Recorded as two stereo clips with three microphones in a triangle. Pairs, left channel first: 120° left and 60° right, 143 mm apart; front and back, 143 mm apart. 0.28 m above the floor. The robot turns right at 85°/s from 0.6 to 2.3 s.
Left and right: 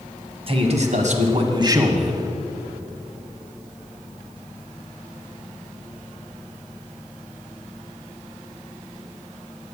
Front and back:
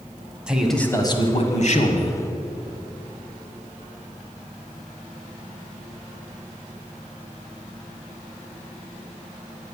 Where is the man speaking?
95° right, 1.5 m; by 2.2 s 35° left, 1.5 m.